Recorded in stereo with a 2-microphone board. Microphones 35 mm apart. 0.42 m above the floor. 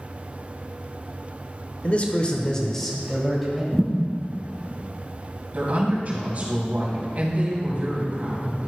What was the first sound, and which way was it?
A man speaking, 40° left (ahead or behind).